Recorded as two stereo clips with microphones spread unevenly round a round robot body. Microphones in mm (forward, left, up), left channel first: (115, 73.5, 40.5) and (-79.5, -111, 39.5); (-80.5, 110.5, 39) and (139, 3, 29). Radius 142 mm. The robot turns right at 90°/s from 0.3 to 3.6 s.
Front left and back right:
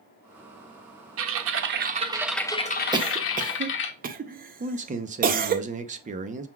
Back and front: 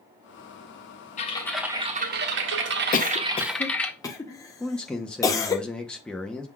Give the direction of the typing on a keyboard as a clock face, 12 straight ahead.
5 o'clock.